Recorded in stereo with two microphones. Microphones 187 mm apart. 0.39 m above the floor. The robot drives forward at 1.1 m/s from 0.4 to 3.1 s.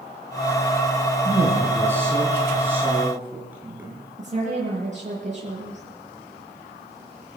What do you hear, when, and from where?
1.2 s a woman speaking: 15° right (ahead or behind), 4.5 m; by 4.0 s 10° right (ahead or behind), 6.5 m
4.2 s a woman speaking: 40° right (ahead or behind), 8.5 m